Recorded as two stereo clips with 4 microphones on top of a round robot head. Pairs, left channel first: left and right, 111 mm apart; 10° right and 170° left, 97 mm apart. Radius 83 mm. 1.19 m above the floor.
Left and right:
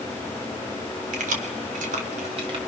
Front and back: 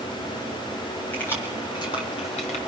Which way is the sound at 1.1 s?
85° right.